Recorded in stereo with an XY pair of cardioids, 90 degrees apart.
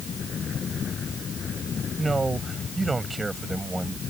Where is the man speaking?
30° right; by 4.0 s 20° right.